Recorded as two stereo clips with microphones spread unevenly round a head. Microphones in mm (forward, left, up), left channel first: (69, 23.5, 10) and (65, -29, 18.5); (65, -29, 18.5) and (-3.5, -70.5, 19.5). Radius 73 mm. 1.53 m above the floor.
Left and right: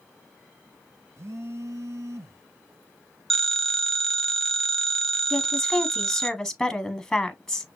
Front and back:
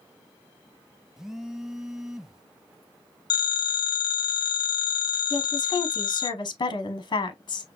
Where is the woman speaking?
Straight ahead, 1.0 m.